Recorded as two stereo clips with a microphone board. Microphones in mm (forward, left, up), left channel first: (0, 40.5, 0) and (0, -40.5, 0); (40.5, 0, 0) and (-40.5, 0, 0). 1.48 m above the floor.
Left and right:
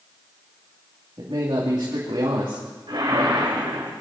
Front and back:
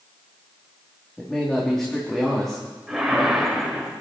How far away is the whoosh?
About 3 m.